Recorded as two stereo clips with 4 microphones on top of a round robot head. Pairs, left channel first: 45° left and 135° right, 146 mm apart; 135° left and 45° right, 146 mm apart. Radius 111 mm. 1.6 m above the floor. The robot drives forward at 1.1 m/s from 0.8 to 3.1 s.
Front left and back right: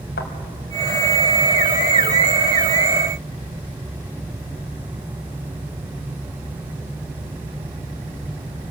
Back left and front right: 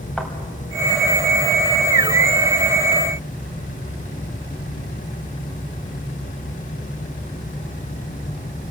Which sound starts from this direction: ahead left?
A thud, at 0.2 s.